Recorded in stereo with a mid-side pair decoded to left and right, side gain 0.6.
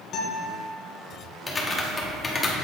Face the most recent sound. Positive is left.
turn(degrees=25)